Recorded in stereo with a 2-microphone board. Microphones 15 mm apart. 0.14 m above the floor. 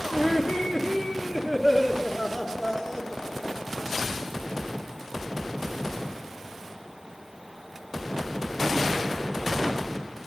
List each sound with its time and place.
0.1 s laughter: 5° left (ahead or behind), 2.5 m